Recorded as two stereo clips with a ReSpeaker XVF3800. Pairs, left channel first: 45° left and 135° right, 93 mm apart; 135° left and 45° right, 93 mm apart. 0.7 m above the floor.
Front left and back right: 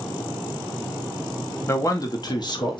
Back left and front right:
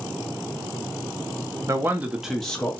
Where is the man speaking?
5° right, 0.6 m; by 2.8 s 65° left, 0.8 m.